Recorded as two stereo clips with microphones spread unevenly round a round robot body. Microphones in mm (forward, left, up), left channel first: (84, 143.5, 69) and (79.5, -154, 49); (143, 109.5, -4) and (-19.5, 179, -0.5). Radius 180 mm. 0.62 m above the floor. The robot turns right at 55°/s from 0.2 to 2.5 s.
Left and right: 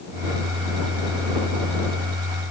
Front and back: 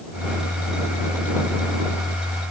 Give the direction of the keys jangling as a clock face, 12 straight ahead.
I don't hear keys jangling.